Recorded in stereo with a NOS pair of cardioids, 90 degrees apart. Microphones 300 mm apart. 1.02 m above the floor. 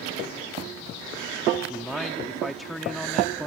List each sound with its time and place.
1.7 s a man speaking: straight ahead